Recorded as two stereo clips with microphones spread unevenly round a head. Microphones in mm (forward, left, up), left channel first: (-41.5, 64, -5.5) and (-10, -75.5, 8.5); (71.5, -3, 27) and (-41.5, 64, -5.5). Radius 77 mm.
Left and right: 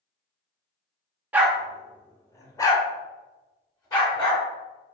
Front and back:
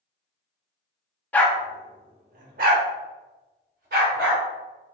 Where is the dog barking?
25° right, 0.6 m; by 4.5 s 165° left, 1.8 m.